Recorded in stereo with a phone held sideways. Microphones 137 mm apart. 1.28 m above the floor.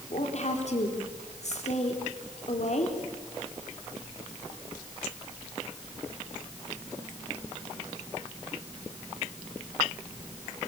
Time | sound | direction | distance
0.1 | a woman speaking | 55° left (ahead or behind) | 4 m